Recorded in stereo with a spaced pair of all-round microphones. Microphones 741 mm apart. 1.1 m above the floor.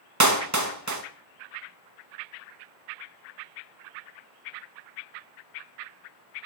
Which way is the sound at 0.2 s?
25° right (ahead or behind).